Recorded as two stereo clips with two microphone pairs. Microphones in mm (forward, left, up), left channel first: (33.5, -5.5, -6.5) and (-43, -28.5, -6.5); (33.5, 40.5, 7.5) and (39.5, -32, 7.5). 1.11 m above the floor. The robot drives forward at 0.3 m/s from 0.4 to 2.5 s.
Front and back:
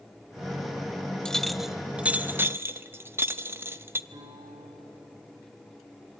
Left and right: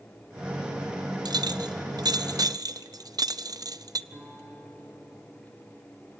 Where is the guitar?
150° right, 6.5 m.